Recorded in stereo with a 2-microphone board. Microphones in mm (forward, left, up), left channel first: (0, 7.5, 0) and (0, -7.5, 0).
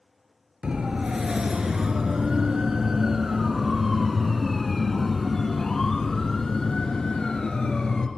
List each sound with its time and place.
0.6 s a siren: 55° right (ahead or behind), 4 m; by 8.1 s 50° left (ahead or behind), 4 m